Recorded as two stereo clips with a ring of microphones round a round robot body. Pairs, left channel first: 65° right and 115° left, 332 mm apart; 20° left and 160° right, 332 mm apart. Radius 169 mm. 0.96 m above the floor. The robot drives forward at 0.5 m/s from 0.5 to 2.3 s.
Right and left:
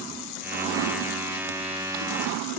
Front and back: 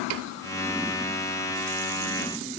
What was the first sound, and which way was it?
Only background noise.